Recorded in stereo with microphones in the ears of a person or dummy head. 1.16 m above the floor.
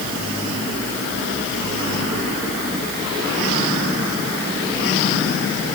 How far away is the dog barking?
I don't hear a dog barking.